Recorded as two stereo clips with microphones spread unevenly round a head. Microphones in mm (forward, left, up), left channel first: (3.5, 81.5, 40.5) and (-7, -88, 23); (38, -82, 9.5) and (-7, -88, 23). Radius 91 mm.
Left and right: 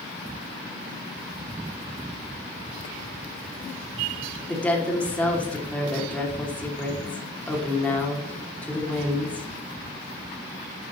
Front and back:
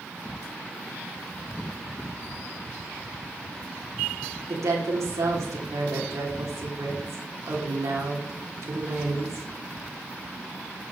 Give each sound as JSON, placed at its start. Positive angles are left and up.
{"t": 4.5, "sound": "a woman speaking", "azimuth_deg": 170, "distance_m": 2.5}